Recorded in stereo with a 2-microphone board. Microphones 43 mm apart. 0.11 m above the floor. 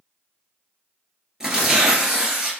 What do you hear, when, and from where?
1.4 s tearing paper: 10° right (ahead or behind), 1.3 m